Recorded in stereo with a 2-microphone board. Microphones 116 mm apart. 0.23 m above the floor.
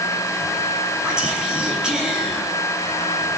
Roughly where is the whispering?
Centre.